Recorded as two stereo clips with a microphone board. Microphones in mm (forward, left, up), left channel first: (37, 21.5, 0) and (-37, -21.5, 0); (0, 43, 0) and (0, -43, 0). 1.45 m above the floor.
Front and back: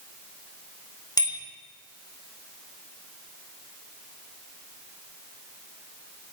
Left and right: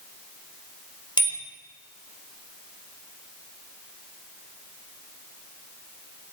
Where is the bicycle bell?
70° left, 4.5 m.